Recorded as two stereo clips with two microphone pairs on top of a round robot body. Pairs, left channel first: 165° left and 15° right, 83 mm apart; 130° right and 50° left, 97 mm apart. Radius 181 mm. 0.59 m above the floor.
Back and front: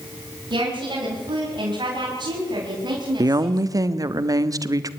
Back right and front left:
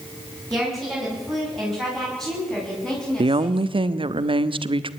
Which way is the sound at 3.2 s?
25° left.